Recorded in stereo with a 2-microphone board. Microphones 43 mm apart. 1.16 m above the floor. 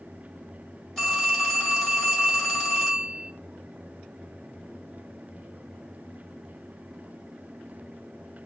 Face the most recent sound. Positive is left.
turn(degrees=0)  # may be behind; listen again after turning